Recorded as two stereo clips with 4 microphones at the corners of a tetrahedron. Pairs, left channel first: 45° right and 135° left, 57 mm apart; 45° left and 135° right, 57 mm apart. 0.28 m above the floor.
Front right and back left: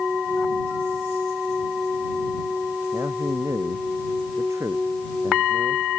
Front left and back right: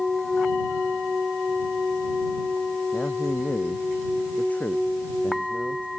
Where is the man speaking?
105° left.